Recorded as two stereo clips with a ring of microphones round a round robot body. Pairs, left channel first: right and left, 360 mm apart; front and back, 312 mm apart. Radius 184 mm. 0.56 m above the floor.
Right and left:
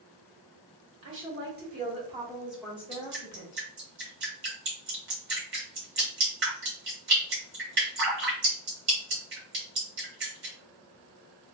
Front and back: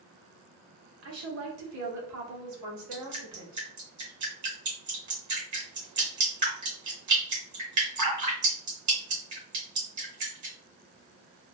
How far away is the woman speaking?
About 1.4 m.